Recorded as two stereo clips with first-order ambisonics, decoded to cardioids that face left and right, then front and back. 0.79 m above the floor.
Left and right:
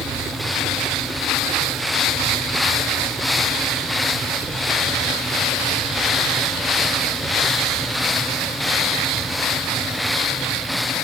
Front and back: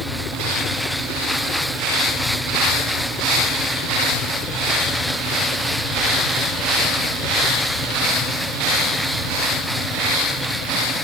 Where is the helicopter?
30° right; by 11.1 s 15° right.